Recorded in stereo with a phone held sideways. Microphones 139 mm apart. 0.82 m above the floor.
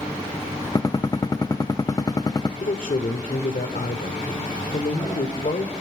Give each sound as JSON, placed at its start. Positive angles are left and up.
{"t": 0.8, "sound": "a gunshot", "side_deg": 25, "distance_m": 0.6}
{"t": 2.6, "sound": "a man speaking", "side_deg": 65, "distance_m": 2.5}